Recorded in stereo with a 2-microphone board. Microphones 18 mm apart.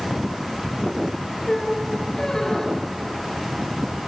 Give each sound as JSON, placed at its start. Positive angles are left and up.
{"t": 1.5, "sound": "a squeak", "side_deg": 30, "distance_m": 3.0}